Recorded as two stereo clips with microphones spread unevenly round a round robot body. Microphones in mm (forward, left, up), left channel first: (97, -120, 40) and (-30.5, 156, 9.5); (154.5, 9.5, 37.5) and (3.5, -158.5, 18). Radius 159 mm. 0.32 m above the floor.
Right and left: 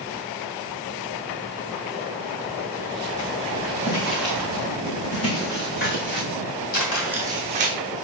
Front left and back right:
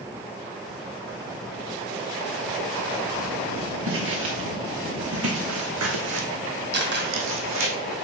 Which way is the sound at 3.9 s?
105° right.